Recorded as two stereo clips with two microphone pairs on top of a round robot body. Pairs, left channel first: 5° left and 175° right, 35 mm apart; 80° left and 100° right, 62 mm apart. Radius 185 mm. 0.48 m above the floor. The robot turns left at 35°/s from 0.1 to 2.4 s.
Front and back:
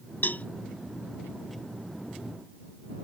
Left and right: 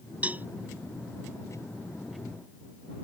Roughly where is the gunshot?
No gunshot in this recording.